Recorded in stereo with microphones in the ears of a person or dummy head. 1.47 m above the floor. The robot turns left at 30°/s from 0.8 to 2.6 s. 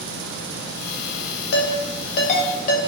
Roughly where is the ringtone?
Left.